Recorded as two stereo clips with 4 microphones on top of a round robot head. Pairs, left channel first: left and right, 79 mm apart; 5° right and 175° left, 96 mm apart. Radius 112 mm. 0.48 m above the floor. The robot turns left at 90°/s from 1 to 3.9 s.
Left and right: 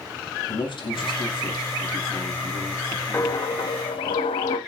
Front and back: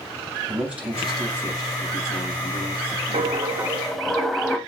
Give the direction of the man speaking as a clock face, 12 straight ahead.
9 o'clock.